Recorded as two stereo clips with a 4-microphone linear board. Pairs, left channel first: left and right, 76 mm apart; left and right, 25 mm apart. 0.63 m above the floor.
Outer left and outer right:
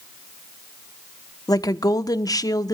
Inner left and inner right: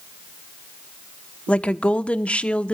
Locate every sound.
1.5 s a woman speaking: 55° left (ahead or behind), 1.1 m